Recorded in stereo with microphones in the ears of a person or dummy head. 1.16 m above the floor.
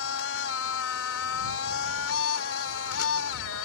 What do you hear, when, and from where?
0.0 s a machine running: 70° left (ahead or behind)